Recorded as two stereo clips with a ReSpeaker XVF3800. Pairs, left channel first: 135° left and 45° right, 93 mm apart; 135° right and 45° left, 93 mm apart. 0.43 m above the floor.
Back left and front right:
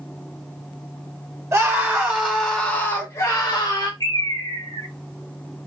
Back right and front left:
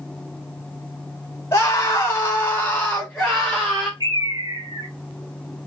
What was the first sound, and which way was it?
A scream, 90° right.